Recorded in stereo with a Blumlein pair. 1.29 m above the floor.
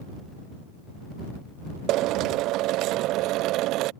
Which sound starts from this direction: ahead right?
A drill, at 1.9 s.